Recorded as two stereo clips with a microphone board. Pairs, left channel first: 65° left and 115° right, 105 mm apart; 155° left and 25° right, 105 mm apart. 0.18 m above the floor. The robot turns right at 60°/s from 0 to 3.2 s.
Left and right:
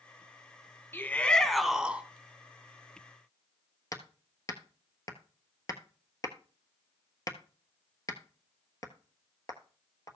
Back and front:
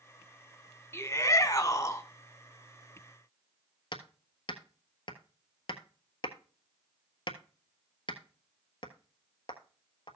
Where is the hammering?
120° left, 1.2 m.